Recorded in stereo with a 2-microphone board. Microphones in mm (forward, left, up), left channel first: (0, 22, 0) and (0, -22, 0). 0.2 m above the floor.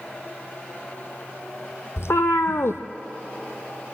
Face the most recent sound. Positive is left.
turn(degrees=80)